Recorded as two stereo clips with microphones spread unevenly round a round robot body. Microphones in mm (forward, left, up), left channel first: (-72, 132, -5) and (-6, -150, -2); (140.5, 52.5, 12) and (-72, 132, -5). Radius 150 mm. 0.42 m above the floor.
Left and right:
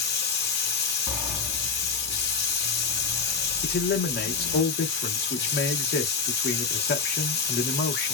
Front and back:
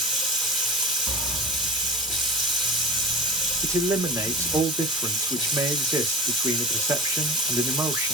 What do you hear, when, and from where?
0.0 s running water: 75° left, 1.2 m
1.1 s a sliding door: 160° right, 0.8 m
3.6 s a man speaking: 100° left, 0.9 m